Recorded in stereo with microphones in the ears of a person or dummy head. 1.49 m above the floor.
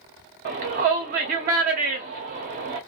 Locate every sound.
0.5 s a shout: 35° right (ahead or behind), 0.6 m